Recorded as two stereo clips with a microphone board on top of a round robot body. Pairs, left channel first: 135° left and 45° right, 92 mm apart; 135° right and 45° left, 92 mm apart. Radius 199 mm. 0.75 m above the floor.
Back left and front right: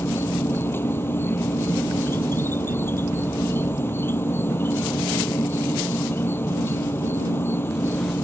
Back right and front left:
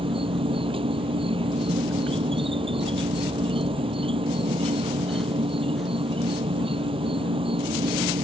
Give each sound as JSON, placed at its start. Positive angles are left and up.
{"t": 0.0, "sound": "an insect", "azimuth_deg": 70}